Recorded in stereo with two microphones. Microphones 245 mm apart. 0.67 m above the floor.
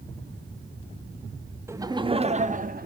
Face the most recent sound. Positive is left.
turn(degrees=-35)  # may be behind; listen again after turning